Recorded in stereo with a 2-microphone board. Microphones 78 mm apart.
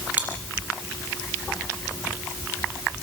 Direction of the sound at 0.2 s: 20° right (ahead or behind).